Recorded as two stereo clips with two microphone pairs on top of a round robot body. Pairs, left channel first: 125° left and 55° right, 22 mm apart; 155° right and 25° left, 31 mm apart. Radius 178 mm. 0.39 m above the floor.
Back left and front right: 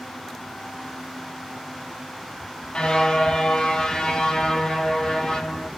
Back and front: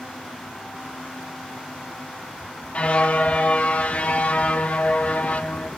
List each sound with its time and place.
2.7 s a car horn: 165° left, 9.5 m; by 5.7 s straight behind, 12 m